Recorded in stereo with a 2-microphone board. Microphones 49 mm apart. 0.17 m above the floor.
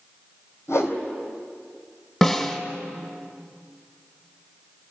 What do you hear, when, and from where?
0.7 s a whoosh: 70° left (ahead or behind), 3 m
2.2 s a snare drum: 5° left (ahead or behind), 2 m